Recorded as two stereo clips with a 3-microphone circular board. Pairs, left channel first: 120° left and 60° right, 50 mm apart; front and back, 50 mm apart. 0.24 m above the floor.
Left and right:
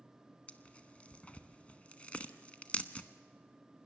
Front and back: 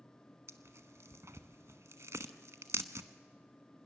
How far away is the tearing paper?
About 1.0 m.